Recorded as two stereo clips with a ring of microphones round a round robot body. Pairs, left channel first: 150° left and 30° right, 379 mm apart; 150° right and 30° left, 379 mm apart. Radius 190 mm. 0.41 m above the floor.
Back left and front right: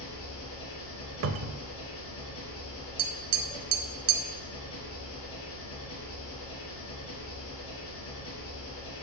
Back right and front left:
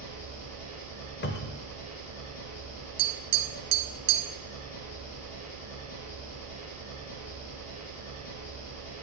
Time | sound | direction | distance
0.0 | an engine running | 155° right | 4 m
1.2 | a cupboard door | 85° right | 0.5 m
3.0 | tapping | 15° right | 1.2 m